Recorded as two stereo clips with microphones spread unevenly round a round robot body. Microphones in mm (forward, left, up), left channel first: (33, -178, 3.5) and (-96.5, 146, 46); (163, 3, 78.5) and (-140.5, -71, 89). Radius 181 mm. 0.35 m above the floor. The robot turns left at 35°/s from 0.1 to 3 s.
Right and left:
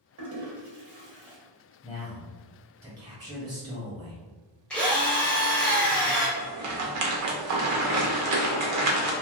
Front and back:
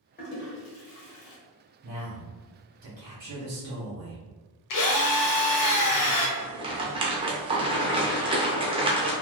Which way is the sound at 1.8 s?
130° right.